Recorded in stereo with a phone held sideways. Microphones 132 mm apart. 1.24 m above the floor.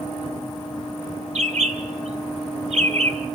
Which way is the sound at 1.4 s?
55° right (ahead or behind).